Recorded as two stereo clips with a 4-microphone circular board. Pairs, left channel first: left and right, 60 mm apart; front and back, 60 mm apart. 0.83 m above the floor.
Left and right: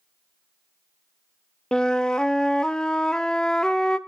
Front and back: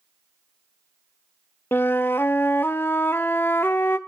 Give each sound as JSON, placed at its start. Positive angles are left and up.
{"t": 1.7, "sound": "a flute", "azimuth_deg": 20, "distance_m": 0.5}